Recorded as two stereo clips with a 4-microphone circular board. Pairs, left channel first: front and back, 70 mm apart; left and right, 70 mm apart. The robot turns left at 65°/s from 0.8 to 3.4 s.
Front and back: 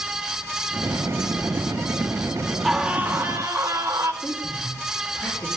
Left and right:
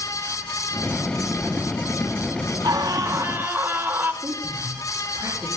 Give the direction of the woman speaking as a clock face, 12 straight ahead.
2 o'clock.